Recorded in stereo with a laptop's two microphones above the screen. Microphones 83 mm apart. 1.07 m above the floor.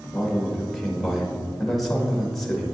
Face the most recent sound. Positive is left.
turn(degrees=0)  # may be behind; listen again after turning